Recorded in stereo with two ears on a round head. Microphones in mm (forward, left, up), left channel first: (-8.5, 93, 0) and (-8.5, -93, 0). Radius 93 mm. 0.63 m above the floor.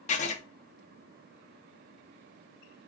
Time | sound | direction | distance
0.1 | writing | 35° left (ahead or behind) | 0.6 m